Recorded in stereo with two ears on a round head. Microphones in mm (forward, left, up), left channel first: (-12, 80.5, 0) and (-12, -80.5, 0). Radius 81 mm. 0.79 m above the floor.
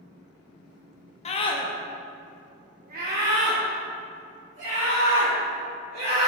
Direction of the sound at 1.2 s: 35° left (ahead or behind).